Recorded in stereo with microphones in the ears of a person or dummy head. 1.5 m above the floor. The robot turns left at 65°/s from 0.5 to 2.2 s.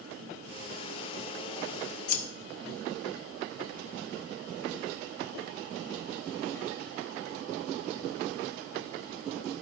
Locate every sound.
2.1 s scissors: 45° left (ahead or behind), 0.9 m; by 2.2 s 55° left (ahead or behind), 0.9 m